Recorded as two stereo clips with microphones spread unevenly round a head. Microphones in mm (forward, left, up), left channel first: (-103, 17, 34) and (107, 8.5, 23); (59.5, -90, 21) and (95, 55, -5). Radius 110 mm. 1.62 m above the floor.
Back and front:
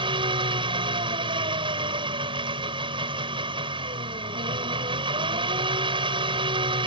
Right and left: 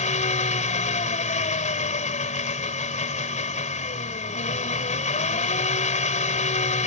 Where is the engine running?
70° right.